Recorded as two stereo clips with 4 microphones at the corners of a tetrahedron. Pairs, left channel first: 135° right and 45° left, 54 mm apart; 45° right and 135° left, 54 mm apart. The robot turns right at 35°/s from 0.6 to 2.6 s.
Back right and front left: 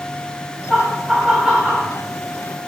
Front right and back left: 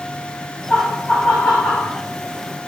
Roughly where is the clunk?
I don't hear a clunk.